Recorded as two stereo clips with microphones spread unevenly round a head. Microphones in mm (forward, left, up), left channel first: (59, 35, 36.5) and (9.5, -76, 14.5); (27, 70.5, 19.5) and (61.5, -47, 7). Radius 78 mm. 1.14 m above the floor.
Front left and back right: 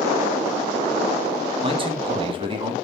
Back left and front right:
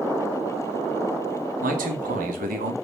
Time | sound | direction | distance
1.6 | a man speaking | 65° right | 1.4 m